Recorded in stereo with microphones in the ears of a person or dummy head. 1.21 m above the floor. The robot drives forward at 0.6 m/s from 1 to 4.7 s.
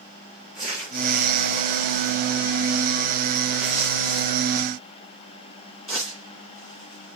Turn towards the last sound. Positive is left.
turn(degrees=0)  # may be behind; listen again after turning